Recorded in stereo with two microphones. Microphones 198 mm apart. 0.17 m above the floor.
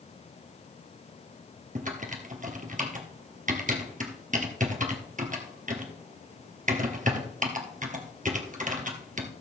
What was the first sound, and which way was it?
Typing on a keyboard, 45° right (ahead or behind).